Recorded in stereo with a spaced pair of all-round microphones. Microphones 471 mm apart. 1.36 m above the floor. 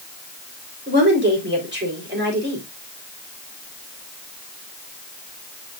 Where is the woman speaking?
20° right (ahead or behind), 4 m.